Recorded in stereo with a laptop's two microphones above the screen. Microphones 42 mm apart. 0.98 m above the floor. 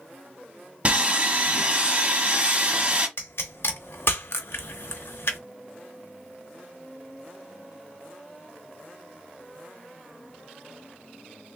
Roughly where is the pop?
Left.